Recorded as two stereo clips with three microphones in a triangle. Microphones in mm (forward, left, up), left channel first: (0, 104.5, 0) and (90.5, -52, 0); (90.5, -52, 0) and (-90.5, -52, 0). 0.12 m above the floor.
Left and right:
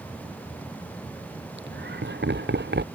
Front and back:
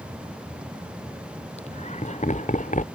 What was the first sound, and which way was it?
Laughter, 50° right.